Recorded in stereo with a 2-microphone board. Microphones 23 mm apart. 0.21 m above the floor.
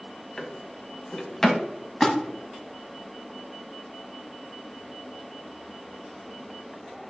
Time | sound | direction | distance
0.4 | a drawer | 10° left (ahead or behind) | 0.8 m
2.0 | a splash | 10° left (ahead or behind) | 1.0 m